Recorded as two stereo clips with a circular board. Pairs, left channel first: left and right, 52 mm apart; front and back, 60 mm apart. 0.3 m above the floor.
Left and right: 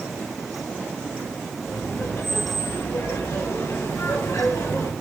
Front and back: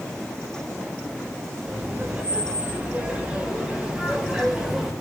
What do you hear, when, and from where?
1.7 s laughter: 120° left, 8 m; by 4.9 s 95° left, 6.5 m